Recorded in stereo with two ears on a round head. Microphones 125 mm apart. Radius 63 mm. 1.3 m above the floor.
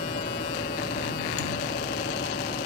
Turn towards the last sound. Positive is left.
turn(degrees=60)  # may be behind; listen again after turning